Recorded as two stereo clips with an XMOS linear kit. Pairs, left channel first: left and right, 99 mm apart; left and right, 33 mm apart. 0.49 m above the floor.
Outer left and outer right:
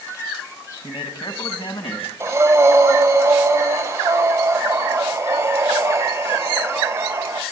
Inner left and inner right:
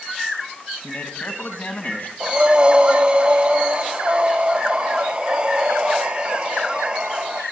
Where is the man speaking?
55° left (ahead or behind), 3 m; by 2.1 s 70° left (ahead or behind), 4 m.